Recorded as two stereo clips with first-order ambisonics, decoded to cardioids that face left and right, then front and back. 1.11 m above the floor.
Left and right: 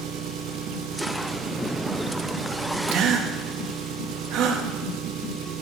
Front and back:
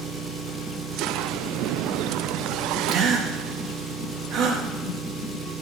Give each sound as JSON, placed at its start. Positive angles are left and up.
{"t": 0.0, "sound": "an engine running", "azimuth_deg": -115, "distance_m": 1.9}
{"t": 2.9, "sound": "a gasp", "azimuth_deg": -130, "distance_m": 1.7}